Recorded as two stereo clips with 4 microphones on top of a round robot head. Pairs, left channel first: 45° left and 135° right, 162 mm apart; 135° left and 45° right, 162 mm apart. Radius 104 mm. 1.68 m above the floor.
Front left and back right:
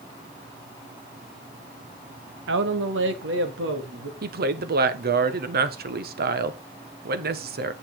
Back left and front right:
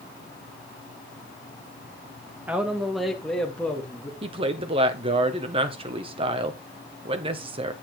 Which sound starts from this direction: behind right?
A man speaking, at 2.5 s.